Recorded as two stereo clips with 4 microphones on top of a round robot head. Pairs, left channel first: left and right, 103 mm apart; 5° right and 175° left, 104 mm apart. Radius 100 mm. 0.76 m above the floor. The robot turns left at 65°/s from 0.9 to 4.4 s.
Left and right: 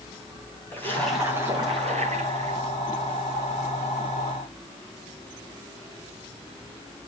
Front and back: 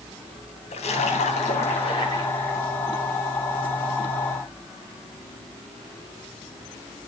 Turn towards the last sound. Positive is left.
turn(degrees=145)